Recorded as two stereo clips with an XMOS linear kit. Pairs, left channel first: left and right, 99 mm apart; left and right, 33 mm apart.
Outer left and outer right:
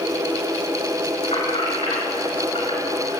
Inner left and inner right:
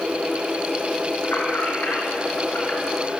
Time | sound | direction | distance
1.2 | keys jangling | 75° left (ahead or behind) | 7 m